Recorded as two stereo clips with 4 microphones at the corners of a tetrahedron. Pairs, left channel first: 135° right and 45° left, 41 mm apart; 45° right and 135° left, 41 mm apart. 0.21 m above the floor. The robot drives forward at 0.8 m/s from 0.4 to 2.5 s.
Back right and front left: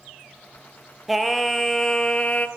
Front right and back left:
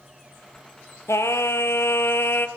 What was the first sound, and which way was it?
Singing, 40° right.